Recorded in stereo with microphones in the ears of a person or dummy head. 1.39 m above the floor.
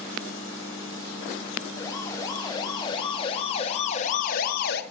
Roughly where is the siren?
Centre.